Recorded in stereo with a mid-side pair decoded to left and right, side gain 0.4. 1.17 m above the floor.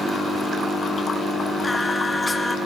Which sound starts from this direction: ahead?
Singing, at 1.6 s.